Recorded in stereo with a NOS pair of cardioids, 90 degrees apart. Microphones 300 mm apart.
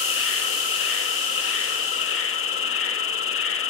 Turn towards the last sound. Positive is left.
turn(degrees=45)